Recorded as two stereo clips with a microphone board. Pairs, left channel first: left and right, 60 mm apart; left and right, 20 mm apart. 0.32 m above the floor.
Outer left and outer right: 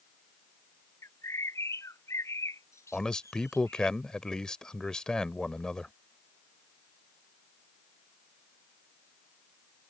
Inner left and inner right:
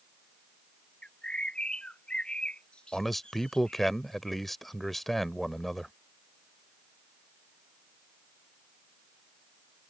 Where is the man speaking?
10° left (ahead or behind).